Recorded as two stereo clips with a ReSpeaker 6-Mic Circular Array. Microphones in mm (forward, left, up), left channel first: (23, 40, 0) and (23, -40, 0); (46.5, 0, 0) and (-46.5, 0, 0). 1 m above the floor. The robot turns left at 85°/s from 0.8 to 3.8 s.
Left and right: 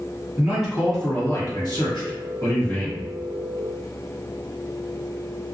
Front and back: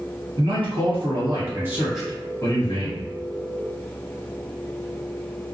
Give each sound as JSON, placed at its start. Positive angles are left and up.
{"t": 0.4, "sound": "a man speaking", "azimuth_deg": -170, "distance_m": 1.3}